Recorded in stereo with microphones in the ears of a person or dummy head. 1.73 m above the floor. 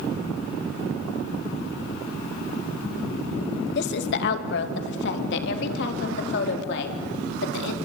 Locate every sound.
3.8 s a woman speaking: 65° left (ahead or behind), 2 m; by 7.8 s 70° left (ahead or behind), 4.5 m